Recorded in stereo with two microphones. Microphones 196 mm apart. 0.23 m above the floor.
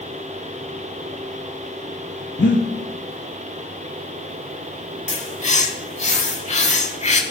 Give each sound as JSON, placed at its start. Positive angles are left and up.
{"t": 2.4, "sound": "breathing", "side_deg": 65, "distance_m": 0.7}
{"t": 5.1, "sound": "a bird", "side_deg": 35, "distance_m": 0.6}